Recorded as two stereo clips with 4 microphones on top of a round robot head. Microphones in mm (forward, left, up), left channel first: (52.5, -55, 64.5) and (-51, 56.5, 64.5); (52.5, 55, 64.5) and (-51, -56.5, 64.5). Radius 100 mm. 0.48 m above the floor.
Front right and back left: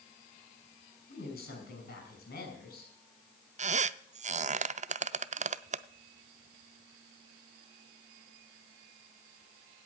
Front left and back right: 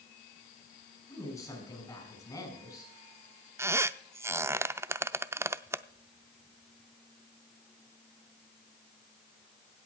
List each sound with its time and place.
1.1 s a woman speaking: 20° right, 6 m
3.6 s a squeak: 160° left, 0.5 m